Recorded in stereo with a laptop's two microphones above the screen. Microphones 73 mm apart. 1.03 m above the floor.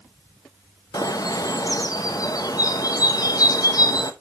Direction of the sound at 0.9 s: 55° left (ahead or behind).